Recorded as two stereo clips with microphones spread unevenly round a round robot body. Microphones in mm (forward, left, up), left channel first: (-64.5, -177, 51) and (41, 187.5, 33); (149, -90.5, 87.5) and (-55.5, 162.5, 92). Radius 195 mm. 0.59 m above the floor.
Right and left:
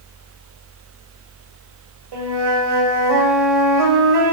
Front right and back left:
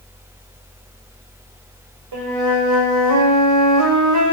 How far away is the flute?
About 2 m.